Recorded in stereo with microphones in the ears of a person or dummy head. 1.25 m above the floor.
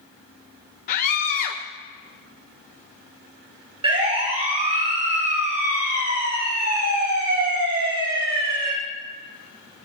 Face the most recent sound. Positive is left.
turn(degrees=-70)  # may be behind; listen again after turning